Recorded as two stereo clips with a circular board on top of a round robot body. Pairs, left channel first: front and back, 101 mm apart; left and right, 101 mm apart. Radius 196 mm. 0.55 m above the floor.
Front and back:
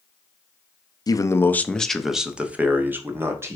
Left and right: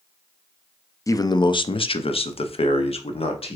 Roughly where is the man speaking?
Ahead left.